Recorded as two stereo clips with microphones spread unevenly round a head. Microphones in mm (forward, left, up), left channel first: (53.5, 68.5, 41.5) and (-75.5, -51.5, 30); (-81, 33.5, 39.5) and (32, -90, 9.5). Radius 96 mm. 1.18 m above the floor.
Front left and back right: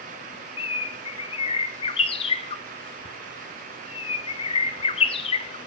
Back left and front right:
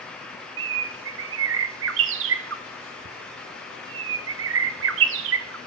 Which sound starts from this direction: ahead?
A bird, at 0.6 s.